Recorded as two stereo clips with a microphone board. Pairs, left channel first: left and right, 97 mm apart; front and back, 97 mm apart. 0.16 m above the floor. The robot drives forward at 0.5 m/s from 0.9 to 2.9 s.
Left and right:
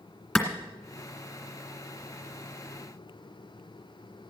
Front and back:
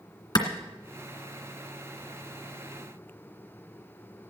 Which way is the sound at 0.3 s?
5° left.